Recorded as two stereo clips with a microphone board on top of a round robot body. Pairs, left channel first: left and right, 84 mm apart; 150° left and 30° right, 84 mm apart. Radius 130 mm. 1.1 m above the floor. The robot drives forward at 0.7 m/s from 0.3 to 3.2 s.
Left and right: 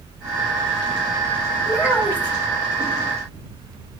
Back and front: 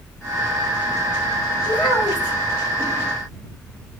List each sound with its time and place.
1.7 s a child speaking: 150° left, 2.5 m; by 2.4 s 155° left, 3 m